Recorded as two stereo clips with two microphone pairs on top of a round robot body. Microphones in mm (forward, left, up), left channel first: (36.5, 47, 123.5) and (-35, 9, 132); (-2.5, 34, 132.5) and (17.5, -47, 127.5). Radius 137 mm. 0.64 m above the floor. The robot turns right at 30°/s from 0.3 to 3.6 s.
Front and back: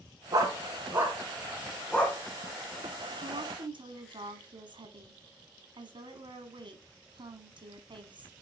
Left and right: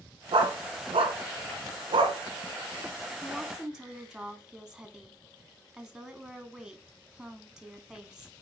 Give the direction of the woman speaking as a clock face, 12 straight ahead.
6 o'clock.